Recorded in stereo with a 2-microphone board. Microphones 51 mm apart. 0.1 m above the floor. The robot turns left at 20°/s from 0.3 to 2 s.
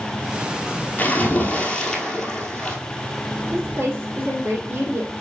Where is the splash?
30° left (ahead or behind), 1.5 m; by 2.8 s 15° left (ahead or behind), 1.5 m.